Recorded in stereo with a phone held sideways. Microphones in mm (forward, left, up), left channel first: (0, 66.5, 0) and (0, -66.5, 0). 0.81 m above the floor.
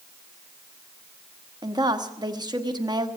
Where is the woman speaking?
30° right (ahead or behind), 1.1 m.